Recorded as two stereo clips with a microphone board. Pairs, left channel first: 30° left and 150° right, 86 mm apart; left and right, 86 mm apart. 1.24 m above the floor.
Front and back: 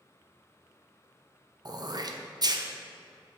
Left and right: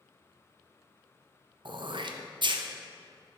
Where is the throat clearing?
110° right, 0.6 m.